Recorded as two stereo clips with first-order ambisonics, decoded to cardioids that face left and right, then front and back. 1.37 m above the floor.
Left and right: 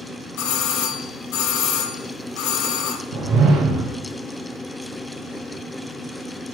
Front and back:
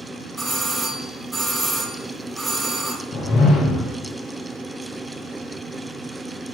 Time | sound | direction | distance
0.4 | a doorbell | 100° left | 1.1 m
3.1 | a whoosh | 50° right | 0.7 m